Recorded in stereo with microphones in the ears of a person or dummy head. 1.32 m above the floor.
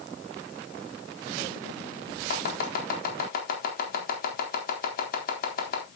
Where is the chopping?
55° left (ahead or behind), 4 m.